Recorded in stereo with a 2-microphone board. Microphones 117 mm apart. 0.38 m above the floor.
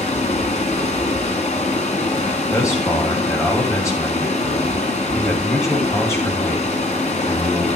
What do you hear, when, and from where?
0.0 s running water: 80° left, 1.2 m
2.5 s a man speaking: 25° left (ahead or behind), 2.5 m